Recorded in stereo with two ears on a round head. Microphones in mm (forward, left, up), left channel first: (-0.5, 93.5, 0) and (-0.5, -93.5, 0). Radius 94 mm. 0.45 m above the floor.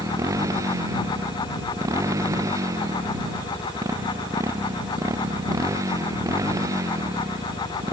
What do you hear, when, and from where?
0.0 s a motorcycle: 15° right (ahead or behind)